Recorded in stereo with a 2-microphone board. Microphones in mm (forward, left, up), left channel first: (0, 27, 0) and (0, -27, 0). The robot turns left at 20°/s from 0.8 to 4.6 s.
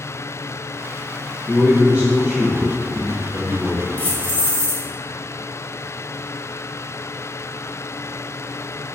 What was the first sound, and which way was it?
A man speaking, 85° right.